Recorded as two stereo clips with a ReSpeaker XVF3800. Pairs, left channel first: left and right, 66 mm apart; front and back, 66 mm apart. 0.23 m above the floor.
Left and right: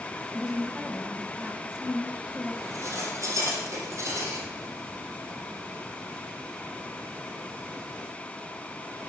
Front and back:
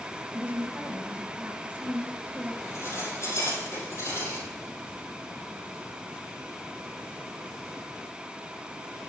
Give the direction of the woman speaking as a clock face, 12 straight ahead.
5 o'clock.